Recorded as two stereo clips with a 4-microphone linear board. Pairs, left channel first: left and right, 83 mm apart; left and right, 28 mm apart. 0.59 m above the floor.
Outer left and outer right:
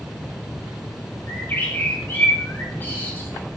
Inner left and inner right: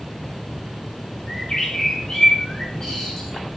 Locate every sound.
1.3 s a bird: 25° left (ahead or behind), 2.5 m